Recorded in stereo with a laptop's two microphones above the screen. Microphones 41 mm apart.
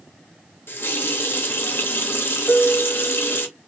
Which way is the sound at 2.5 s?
50° left (ahead or behind).